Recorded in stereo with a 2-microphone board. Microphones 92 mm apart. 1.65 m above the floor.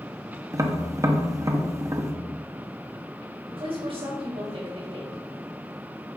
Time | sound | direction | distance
0.5 | tapping | 30° right (ahead or behind) | 0.9 m
3.5 | a woman speaking | 70° right (ahead or behind) | 4 m